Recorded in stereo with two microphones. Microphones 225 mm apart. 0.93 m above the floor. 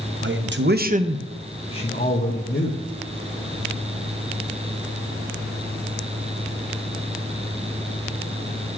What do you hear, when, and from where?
0.2 s a man speaking: 55° right (ahead or behind), 1.0 m; by 2.8 s 50° left (ahead or behind), 1.4 m